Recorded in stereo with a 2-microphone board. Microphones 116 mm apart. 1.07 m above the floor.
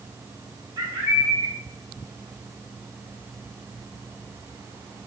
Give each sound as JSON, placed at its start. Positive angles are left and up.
{"t": 0.8, "sound": "a bird", "side_deg": -45, "distance_m": 3.0}